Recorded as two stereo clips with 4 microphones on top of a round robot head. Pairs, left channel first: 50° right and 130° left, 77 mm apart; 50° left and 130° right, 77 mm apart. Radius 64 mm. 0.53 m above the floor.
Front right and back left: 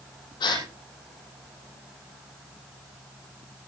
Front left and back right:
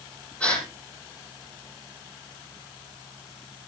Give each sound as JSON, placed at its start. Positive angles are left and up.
{"t": 0.4, "sound": "a gasp", "azimuth_deg": -25, "distance_m": 6.5}